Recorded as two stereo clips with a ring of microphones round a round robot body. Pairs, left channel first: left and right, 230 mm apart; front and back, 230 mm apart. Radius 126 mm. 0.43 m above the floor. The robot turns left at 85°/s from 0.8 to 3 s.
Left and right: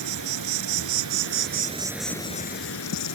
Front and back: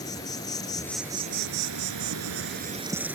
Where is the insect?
75° right; by 3.1 s 95° left.